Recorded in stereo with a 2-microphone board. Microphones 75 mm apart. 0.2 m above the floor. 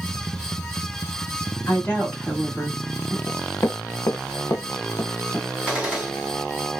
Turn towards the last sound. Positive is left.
turn(degrees=-20)  # may be behind; listen again after turning